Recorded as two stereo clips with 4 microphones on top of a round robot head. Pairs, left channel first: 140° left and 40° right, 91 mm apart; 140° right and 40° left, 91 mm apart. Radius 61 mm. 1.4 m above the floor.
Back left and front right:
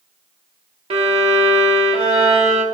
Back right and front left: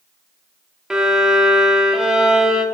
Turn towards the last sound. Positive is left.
turn(degrees=-40)